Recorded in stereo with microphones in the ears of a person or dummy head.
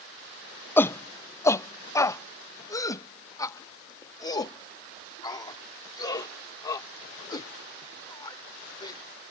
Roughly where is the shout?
Centre.